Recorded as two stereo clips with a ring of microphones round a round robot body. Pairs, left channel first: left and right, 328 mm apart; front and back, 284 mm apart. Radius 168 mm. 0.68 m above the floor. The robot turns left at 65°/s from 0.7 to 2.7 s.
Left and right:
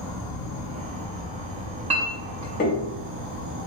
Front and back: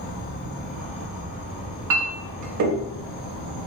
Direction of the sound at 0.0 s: 35° left.